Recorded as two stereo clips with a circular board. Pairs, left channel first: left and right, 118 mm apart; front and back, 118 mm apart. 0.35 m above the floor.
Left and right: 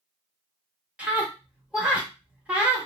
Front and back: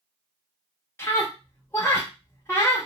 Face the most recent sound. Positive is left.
turn(degrees=-25)